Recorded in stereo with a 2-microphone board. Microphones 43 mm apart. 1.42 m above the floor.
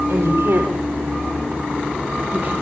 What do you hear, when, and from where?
0.1 s a woman speaking: 75° right (ahead or behind), 4.5 m; by 2.5 s 45° right (ahead or behind), 2.5 m